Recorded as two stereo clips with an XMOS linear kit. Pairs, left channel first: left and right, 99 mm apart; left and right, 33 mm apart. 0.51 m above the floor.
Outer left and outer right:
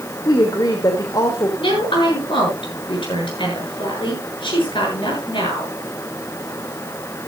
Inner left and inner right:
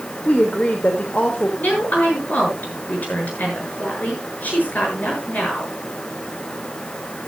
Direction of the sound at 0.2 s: 40° left (ahead or behind).